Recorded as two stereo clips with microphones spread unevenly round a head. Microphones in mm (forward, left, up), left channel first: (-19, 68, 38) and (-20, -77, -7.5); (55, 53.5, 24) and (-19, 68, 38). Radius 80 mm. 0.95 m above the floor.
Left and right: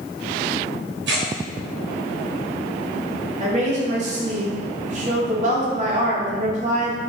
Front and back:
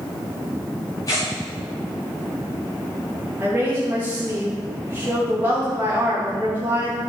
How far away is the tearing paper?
About 2 m.